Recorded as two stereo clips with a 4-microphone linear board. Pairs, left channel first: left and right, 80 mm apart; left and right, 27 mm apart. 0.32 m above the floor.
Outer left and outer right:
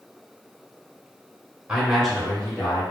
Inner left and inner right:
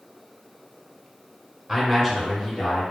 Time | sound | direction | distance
1.7 | a man speaking | 15° right (ahead or behind) | 0.9 m